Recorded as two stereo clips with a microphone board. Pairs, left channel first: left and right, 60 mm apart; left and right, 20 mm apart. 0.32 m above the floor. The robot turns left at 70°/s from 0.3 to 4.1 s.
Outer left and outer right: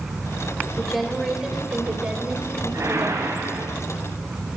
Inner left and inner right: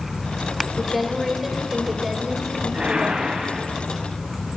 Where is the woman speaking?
5° left (ahead or behind), 1.3 m; by 3.5 s centre (ahead or behind), 1.3 m.